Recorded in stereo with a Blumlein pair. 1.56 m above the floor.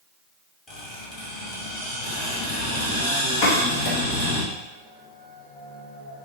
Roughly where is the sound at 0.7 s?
Ahead left.